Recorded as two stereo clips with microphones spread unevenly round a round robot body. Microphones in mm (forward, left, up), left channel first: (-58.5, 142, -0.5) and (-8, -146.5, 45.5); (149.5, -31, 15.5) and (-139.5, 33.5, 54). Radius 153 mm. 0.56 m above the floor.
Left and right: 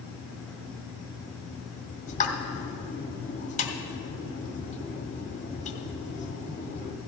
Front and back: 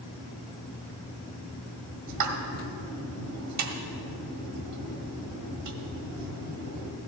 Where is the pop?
155° left, 1.4 m.